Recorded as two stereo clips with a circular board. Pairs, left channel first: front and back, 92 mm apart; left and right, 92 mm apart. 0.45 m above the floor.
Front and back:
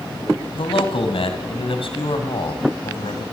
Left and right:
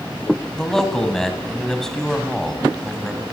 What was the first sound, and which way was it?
A man speaking, 5° left.